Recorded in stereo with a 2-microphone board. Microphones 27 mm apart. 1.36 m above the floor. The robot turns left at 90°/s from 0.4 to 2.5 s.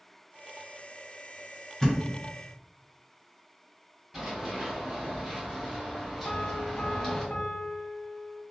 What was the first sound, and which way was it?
A thud, 20° left (ahead or behind).